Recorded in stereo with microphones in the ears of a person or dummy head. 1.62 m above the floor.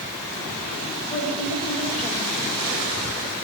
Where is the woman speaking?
50° left (ahead or behind), 4 m.